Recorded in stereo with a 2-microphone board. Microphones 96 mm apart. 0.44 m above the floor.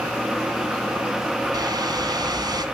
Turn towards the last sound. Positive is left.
turn(degrees=-45)  # may be behind; listen again after turning